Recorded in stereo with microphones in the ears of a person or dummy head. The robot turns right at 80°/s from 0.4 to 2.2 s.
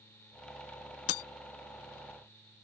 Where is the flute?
No flute in this recording.